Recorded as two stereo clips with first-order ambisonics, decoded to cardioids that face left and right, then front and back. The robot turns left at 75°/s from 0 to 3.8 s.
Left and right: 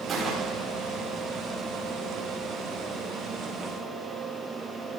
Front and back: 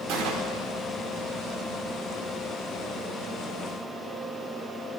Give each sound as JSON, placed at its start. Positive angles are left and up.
{"t": 0.1, "sound": "a gunshot", "azimuth_deg": -160, "distance_m": 5.5}